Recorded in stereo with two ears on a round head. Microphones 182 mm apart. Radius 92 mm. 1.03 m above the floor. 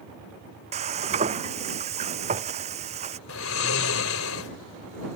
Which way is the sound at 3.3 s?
80° left.